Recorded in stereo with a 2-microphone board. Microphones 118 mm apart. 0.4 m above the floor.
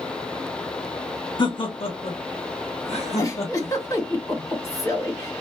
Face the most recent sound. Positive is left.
turn(degrees=30)  # may be behind; listen again after turning